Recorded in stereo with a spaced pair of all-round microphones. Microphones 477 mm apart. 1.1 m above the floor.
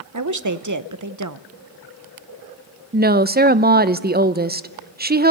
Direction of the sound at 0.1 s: 40° right (ahead or behind).